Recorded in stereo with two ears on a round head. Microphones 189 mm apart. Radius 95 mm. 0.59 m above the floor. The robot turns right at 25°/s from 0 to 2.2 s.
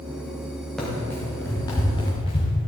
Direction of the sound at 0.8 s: Centre (ahead or behind).